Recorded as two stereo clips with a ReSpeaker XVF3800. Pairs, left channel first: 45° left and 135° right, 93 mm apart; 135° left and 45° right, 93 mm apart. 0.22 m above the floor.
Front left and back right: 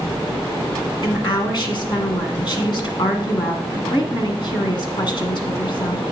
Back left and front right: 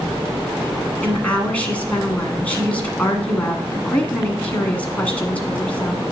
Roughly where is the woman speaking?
Ahead left.